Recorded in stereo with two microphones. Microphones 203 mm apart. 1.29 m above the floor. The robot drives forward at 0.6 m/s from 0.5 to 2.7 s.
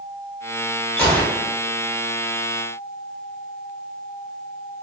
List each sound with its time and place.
1.0 s a gunshot: 5° left (ahead or behind), 2.5 m